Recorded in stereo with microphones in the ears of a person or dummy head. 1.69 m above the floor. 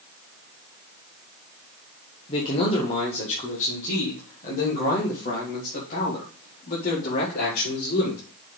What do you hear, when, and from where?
2.3 s a man speaking: 30° left (ahead or behind), 1.6 m; by 8.2 s 50° left (ahead or behind), 4.5 m